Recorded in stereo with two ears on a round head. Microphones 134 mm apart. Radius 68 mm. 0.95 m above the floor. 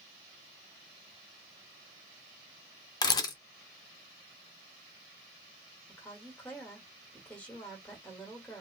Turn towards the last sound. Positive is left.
turn(degrees=10)  # may be behind; listen again after turning